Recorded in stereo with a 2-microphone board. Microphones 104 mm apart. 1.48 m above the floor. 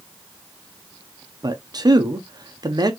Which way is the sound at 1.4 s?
40° right (ahead or behind).